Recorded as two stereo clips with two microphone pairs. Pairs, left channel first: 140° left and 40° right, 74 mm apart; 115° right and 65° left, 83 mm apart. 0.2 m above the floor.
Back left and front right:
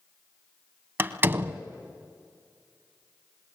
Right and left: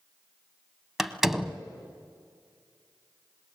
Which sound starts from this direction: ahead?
A door slam, at 1.0 s.